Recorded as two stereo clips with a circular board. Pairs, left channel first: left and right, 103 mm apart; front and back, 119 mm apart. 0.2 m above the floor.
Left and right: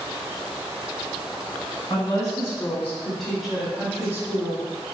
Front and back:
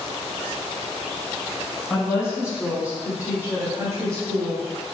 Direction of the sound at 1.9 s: 95° left.